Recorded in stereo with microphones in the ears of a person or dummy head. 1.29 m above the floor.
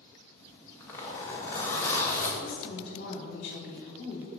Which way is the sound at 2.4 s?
40° left (ahead or behind).